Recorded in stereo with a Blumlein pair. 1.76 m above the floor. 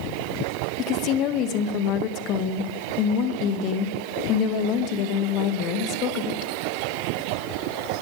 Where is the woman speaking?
35° left, 1.8 m.